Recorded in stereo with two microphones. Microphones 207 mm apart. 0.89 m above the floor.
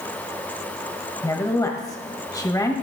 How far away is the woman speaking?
About 1.0 m.